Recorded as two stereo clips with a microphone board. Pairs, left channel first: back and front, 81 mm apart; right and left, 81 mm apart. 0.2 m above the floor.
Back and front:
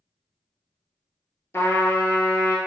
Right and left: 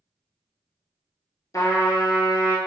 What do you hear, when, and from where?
1.5 s a trumpet: 125° right, 0.6 m